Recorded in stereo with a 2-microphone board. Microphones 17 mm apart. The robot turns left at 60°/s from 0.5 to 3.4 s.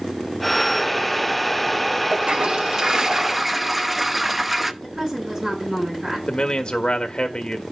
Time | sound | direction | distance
2.1 | a toilet flushing | 95° right | 0.6 m
4.8 | a woman speaking | 40° right (ahead or behind) | 7.5 m
6.3 | a man speaking | 65° left (ahead or behind) | 1.4 m